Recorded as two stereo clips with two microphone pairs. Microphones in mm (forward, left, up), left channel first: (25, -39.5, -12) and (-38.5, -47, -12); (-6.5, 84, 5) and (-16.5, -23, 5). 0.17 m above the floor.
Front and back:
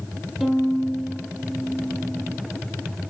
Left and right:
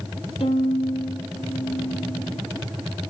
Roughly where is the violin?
Left.